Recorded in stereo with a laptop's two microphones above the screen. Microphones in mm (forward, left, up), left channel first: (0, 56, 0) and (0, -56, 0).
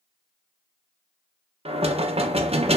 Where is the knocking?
60° right (ahead or behind), 0.5 m.